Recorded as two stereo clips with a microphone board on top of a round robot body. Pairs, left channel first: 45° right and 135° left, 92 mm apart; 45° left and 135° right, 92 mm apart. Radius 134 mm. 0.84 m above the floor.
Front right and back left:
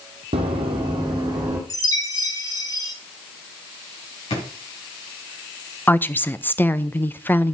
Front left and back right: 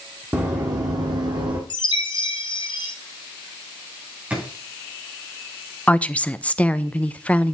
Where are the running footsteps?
155° left, 1.4 m; by 1.6 s 170° right, 2.0 m.